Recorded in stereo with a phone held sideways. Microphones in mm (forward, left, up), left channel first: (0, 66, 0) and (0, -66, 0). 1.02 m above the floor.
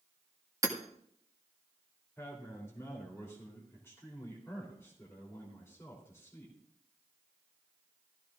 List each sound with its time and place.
0.6 s hammering: 25° right (ahead or behind), 1.7 m
2.2 s a man speaking: 20° left (ahead or behind), 3.5 m